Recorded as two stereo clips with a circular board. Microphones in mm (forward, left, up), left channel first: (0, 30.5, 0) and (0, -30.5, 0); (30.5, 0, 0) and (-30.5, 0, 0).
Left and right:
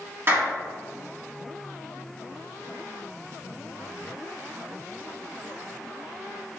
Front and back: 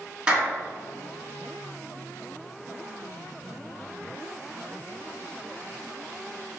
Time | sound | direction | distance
0.3 | a clap | 115° right | 1.7 m